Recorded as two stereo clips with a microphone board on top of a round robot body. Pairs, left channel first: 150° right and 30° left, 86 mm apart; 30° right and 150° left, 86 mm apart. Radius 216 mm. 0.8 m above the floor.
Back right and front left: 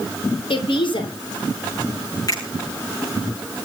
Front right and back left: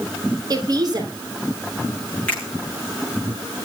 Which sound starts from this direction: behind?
A woman speaking, at 0.5 s.